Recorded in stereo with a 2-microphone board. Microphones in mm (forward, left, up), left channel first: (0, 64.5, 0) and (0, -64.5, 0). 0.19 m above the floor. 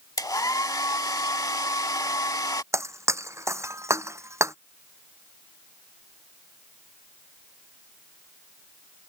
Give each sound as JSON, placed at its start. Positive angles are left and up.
{"t": 0.2, "sound": "a hair dryer", "side_deg": 30}
{"t": 2.7, "sound": "breaking glass", "side_deg": -20}